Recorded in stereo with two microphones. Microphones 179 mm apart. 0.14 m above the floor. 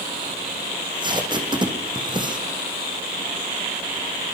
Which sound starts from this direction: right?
Tape being pulled, at 0.7 s.